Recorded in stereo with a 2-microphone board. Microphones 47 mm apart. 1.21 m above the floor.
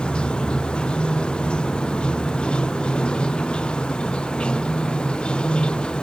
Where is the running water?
20° left (ahead or behind).